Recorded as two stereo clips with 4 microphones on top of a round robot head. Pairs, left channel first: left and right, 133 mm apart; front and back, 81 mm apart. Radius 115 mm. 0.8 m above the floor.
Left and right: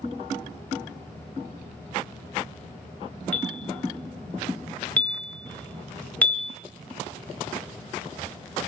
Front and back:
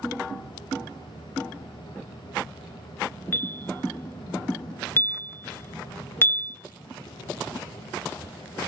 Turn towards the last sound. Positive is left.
turn(degrees=15)